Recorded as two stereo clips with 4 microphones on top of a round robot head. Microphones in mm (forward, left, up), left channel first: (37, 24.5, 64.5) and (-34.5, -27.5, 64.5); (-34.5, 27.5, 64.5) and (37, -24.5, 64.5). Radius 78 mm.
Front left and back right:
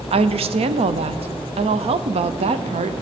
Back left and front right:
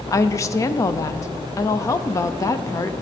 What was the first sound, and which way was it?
A woman speaking, 155° right.